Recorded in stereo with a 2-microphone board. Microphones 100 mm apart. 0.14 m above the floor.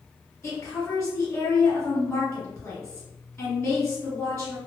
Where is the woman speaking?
15° left (ahead or behind), 1.8 m.